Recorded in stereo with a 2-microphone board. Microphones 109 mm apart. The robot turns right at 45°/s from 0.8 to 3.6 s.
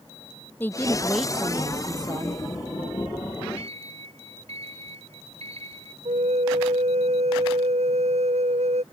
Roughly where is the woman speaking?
Behind.